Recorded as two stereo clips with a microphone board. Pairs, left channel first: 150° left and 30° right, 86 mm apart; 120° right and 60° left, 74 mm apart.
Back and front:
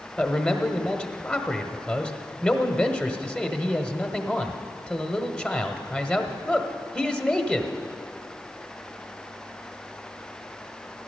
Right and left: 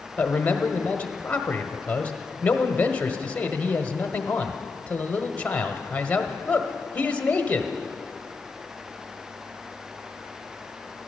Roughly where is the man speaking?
Behind right.